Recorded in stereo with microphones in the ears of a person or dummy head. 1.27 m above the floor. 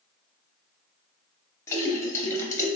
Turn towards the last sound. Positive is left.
turn(degrees=15)  # may be behind; listen again after turning